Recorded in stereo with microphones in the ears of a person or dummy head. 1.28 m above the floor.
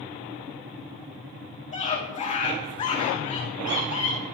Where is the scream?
30° left (ahead or behind), 2 m.